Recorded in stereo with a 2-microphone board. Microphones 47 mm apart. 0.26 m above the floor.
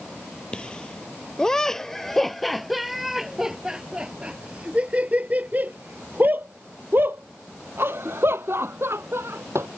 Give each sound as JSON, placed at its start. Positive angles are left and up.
{"t": 0.5, "sound": "laughter", "side_deg": 20}